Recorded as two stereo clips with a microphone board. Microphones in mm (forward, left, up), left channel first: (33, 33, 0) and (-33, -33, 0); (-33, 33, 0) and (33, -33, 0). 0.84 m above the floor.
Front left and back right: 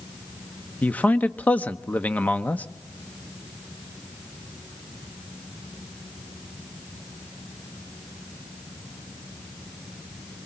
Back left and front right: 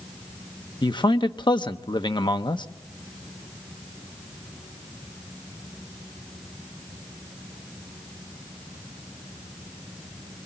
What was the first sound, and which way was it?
A man speaking, 115° left.